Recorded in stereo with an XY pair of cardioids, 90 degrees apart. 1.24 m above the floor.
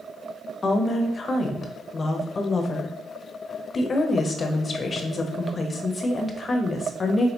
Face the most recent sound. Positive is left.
turn(degrees=40)